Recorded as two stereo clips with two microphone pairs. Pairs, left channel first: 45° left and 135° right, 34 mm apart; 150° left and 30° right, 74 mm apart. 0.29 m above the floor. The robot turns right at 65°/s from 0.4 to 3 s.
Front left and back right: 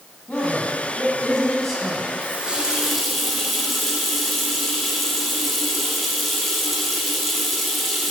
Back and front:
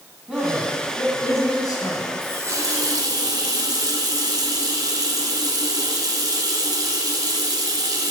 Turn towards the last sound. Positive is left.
turn(degrees=-45)